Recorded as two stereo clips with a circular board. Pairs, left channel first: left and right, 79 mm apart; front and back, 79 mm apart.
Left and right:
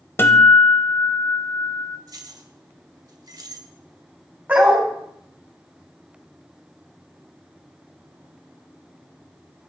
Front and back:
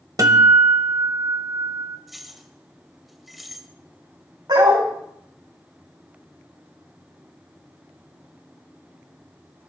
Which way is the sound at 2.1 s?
95° right.